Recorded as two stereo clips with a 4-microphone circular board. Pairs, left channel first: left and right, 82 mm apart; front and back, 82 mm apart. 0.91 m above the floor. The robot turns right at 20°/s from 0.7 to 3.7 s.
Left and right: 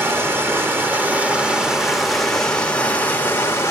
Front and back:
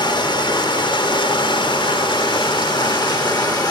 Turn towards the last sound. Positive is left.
turn(degrees=35)